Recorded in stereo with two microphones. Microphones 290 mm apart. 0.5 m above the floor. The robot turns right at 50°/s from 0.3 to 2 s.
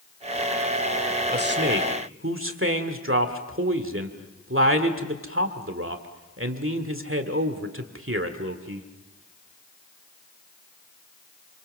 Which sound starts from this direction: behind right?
A man speaking, at 1.3 s.